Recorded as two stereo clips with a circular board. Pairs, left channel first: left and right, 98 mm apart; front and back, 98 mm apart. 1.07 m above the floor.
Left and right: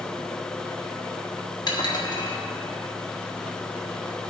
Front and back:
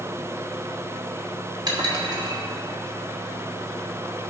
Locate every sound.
1.7 s dishes clattering: 135° left, 1.5 m